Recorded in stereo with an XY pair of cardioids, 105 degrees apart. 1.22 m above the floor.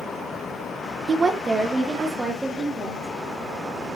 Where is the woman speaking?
40° right, 0.5 m; by 3.1 s 20° right, 2.5 m.